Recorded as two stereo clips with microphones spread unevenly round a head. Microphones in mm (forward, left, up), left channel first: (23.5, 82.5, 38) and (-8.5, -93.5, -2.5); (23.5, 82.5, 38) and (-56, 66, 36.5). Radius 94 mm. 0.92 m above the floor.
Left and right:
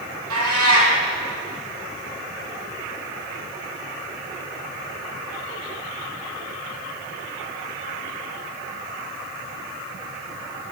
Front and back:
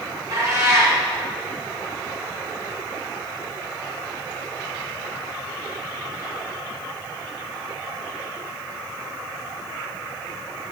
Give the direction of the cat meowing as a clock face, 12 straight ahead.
3 o'clock.